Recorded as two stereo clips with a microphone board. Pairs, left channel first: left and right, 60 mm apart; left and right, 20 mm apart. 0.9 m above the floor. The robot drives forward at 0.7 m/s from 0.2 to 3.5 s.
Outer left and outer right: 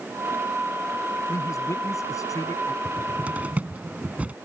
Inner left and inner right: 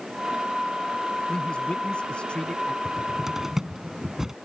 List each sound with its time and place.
1.3 s a man speaking: 60° left (ahead or behind); by 2.8 s 65° left (ahead or behind)
2.9 s a cupboard door: 25° right (ahead or behind)